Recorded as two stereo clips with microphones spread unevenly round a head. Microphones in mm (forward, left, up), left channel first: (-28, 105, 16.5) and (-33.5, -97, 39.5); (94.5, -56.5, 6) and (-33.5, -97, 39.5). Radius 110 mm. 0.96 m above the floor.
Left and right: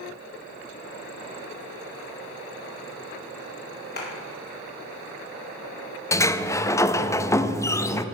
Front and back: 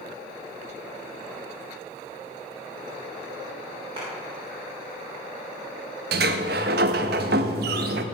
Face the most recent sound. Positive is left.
turn(degrees=165)